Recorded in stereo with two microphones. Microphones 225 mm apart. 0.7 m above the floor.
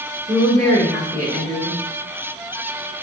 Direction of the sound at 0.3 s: 15° left (ahead or behind).